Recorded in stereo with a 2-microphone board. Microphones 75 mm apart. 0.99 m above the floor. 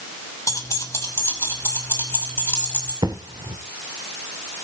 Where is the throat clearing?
I don't hear throat clearing.